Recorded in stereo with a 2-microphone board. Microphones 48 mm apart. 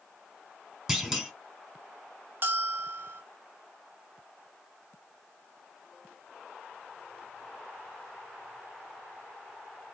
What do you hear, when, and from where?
0.9 s a clunk: 10° right (ahead or behind), 1.1 m
2.4 s a bell: 45° right (ahead or behind), 1.3 m